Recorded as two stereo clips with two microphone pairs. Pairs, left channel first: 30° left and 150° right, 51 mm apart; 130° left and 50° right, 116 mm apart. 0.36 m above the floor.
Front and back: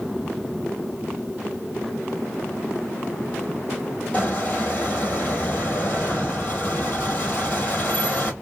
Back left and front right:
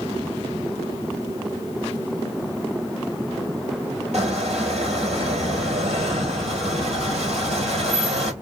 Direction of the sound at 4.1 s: 30° right.